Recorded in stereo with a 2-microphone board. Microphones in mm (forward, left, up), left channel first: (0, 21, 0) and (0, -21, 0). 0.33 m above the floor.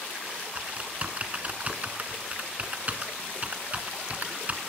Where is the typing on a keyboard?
40° right (ahead or behind), 1.2 m.